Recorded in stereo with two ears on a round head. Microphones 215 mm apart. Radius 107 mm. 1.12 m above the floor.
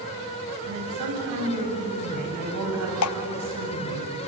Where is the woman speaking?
85° right, 8 m; by 4.0 s 75° right (ahead or behind), 7.5 m.